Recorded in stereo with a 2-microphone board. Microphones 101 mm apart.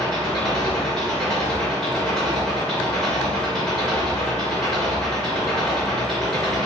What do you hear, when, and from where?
0.0 s an engine running: 5° left (ahead or behind), 3 m